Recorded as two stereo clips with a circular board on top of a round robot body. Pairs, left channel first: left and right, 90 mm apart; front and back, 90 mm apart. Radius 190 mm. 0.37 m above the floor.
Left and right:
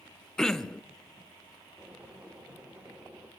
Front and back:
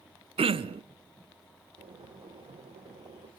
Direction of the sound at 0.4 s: 175° left.